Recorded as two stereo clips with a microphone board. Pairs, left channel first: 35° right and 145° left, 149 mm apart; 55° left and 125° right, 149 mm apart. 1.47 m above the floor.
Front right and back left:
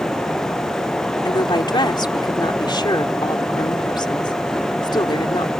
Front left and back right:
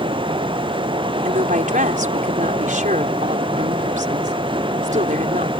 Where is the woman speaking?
95° right.